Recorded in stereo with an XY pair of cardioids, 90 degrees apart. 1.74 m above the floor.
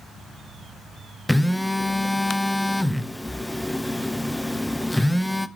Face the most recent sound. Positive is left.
turn(degrees=5)